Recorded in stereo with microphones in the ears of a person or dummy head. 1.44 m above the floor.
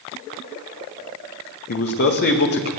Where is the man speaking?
60° left (ahead or behind), 1.7 m.